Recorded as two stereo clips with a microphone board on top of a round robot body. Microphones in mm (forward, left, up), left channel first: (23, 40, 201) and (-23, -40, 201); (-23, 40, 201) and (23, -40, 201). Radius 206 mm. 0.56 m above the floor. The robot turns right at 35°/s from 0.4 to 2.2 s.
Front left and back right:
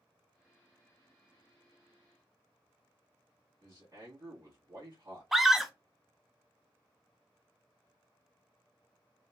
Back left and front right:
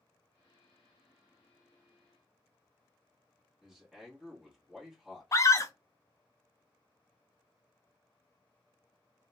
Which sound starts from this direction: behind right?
A man speaking, at 3.6 s.